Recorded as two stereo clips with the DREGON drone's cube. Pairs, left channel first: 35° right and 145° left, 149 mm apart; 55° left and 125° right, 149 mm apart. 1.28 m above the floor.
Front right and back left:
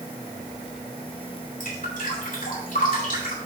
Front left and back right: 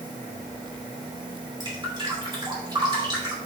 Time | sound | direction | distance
1.6 | dripping | 65° right | 3 m